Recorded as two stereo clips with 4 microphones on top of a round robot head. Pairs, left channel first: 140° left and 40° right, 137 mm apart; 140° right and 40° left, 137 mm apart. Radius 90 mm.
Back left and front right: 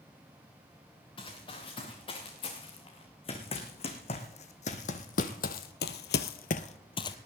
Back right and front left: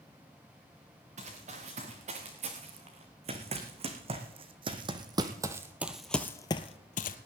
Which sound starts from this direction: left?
Running footsteps, at 1.2 s.